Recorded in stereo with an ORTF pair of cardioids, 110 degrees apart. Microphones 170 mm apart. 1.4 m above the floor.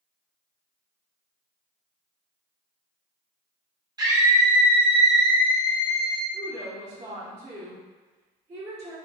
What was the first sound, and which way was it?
A scream, 25° right.